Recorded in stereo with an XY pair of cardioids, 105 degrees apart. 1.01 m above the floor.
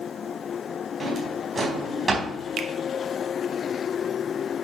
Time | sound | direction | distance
1.0 | a drawer | 25° right | 4 m
2.6 | a finger snap | 60° right | 1.2 m